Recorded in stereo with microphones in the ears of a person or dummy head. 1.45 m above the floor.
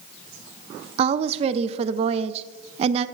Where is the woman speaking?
35° right (ahead or behind), 0.5 m.